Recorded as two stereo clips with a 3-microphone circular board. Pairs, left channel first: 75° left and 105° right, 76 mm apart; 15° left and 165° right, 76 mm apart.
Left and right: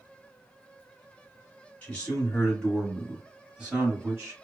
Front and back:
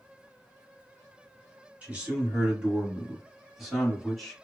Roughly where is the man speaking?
Behind left.